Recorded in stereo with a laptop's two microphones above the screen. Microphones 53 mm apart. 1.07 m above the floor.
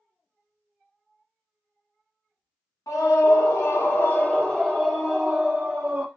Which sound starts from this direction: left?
A scream, at 2.9 s.